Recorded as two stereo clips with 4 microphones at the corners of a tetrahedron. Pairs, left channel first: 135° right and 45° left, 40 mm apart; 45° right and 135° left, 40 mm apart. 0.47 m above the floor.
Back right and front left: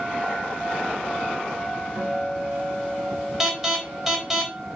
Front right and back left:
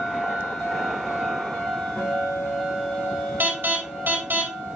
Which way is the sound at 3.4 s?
120° left.